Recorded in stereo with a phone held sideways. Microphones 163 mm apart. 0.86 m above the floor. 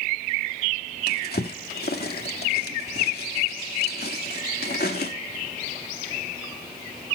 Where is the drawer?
75° left (ahead or behind), 1.4 m.